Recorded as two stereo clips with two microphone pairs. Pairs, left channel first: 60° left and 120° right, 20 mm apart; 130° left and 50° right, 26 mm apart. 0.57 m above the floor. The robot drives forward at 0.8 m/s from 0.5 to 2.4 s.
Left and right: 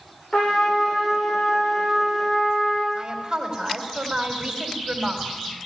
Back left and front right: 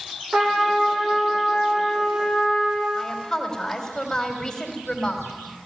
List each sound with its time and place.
0.3 s a trumpet: 5° left, 10 m
3.0 s a woman speaking: 160° right, 3.5 m